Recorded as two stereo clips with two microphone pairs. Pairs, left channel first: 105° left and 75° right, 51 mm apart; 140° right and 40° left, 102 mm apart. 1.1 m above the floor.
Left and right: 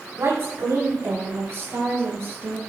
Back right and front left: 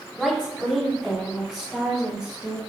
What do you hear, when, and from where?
0.2 s a woman speaking: 55° right, 6.5 m; by 2.6 s 45° right, 4.5 m